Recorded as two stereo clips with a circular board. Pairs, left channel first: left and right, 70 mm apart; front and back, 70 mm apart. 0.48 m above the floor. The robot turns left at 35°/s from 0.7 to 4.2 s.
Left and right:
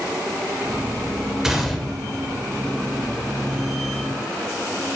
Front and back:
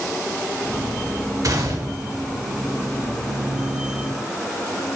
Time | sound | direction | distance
1.4 | a gunshot | 175° right | 1.7 m